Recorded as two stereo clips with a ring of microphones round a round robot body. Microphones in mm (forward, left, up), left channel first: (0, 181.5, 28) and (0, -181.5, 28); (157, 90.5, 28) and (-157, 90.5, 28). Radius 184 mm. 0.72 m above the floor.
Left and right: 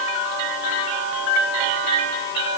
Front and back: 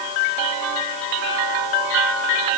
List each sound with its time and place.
Only background noise.